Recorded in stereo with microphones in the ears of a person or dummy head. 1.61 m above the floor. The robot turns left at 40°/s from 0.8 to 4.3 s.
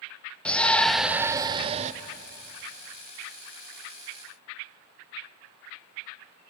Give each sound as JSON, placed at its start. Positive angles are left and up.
{"t": 0.5, "sound": "a shout", "azimuth_deg": 5, "distance_m": 0.8}